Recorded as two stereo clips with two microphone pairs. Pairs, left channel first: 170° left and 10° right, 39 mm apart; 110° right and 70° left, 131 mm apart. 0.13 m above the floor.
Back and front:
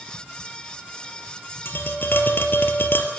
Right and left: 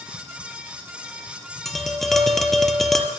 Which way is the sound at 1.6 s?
165° left.